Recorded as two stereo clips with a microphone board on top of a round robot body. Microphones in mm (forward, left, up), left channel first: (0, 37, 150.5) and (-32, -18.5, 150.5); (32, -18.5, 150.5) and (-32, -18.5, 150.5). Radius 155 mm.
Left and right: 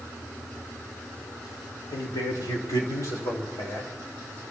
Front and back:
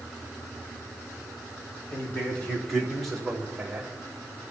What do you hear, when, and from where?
1.9 s a man speaking: 65° left, 3 m; by 3.9 s 95° left, 4.5 m